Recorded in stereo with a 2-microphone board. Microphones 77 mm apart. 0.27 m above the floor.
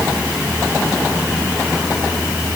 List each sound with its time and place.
Only background noise.